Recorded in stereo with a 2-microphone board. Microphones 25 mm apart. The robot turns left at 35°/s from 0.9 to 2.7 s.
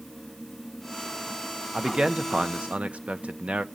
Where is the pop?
No pop in this recording.